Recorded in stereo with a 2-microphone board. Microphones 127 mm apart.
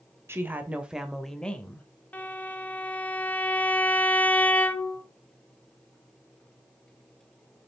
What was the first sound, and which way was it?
A woman speaking, 20° right (ahead or behind).